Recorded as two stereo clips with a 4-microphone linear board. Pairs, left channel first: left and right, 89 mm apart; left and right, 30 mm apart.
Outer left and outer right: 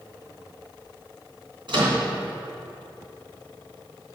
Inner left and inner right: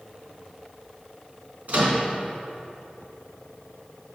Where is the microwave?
70° right (ahead or behind), 3 m.